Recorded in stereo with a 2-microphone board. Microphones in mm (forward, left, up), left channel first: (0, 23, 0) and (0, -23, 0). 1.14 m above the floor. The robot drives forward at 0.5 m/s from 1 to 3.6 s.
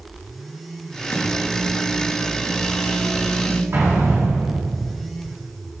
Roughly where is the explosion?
Right.